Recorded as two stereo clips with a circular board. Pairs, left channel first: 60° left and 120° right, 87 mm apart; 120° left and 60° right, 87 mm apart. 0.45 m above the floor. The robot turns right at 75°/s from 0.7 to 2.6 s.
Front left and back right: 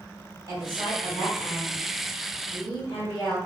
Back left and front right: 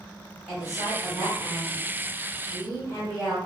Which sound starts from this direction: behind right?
A woman speaking, at 0.5 s.